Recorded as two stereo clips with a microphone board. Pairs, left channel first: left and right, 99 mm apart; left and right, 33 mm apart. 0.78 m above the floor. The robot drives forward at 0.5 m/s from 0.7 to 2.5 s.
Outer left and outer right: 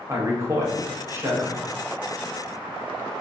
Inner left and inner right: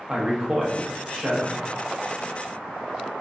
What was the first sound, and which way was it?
A man speaking, 25° right (ahead or behind).